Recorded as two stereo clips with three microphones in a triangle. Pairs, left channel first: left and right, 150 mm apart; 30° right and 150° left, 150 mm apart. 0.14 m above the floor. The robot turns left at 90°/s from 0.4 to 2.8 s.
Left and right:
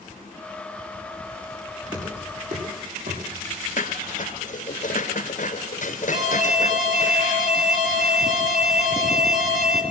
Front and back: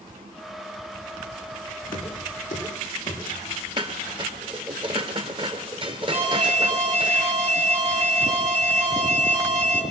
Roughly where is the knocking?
Ahead.